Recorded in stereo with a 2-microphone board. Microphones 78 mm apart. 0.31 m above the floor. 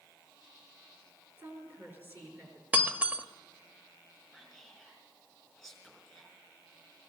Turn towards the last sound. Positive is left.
turn(degrees=-5)  # may be behind; listen again after turning